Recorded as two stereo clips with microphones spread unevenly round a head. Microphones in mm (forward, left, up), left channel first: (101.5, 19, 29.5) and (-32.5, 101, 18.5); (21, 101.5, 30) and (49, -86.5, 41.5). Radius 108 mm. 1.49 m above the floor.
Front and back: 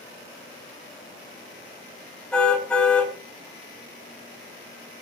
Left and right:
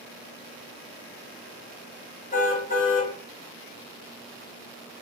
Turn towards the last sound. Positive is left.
turn(degrees=50)